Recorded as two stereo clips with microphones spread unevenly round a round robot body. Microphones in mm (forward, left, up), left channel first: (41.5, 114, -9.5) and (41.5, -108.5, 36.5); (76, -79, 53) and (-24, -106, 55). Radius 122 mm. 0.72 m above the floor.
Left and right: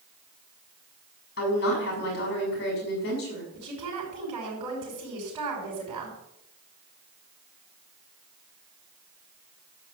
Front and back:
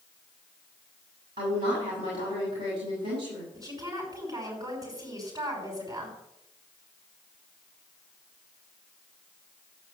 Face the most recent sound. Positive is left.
turn(degrees=-115)